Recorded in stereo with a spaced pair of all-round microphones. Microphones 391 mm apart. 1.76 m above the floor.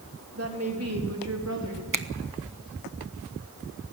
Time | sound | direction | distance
0.3 | a woman speaking | 35° right (ahead or behind) | 3.5 m
1.9 | a finger snap | 55° right (ahead or behind) | 0.9 m